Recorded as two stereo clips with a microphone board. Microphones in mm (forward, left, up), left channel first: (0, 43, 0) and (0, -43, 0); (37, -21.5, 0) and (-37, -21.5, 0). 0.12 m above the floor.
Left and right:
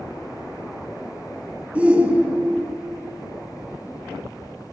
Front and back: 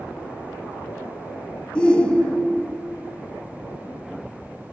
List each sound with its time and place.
1.8 s a shout: 50° right, 1.1 m